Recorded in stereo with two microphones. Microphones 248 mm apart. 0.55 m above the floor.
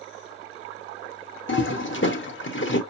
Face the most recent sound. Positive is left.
turn(degrees=50)  # may be behind; listen again after turning